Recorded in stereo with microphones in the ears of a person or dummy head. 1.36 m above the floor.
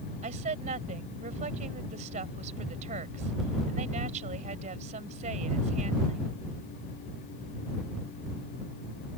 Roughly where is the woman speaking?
Right.